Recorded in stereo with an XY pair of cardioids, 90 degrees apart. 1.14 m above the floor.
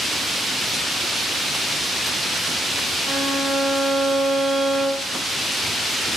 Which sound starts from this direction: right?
A violin, at 3.0 s.